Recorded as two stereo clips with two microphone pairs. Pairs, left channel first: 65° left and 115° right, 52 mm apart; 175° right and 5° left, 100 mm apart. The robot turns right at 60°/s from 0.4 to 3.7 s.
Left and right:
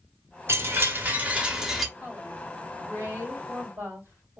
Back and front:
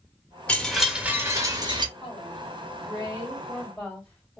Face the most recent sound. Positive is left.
turn(degrees=-90)